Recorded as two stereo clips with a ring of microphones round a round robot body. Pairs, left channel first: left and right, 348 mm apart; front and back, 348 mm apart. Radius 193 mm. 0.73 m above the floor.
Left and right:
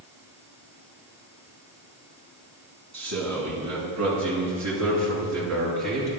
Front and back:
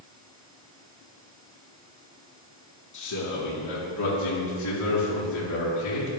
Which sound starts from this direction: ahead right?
A man speaking, at 2.9 s.